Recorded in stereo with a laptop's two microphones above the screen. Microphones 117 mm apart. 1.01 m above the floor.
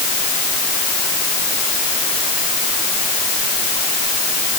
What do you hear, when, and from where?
Only background noise.